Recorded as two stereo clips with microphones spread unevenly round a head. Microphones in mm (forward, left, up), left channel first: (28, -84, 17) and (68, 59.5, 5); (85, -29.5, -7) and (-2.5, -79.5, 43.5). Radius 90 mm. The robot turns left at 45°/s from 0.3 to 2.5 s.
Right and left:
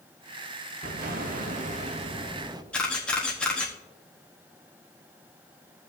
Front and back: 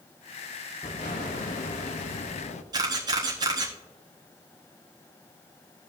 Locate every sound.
0.8 s an explosion: 90° left, 0.7 m; by 2.6 s 15° left, 0.7 m
2.7 s a camera shutter: 175° left, 1.0 m